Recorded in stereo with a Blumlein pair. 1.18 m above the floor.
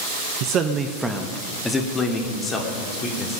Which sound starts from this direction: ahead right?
A man speaking, at 0.4 s.